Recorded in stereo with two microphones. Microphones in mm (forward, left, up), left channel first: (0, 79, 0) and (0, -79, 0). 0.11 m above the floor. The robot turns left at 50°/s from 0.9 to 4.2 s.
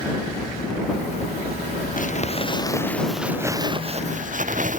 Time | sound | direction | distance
2.0 | crumpling | 60° left (ahead or behind) | ?